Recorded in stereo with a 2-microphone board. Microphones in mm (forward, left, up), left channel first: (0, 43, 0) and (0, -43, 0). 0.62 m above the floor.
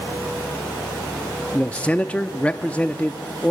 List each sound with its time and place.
1.5 s a man speaking: 15° left (ahead or behind), 0.6 m